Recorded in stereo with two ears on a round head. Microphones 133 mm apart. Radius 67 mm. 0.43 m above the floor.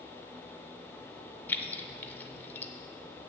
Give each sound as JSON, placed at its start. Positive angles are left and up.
{"t": 1.5, "sound": "keys jangling", "side_deg": 15, "distance_m": 0.6}